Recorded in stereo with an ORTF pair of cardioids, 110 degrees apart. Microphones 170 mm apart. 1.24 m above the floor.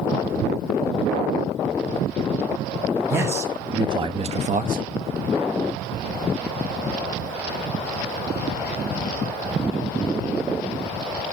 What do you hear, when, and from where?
3.1 s a man speaking: 15° right, 2 m; by 4.8 s 60° right, 1.1 m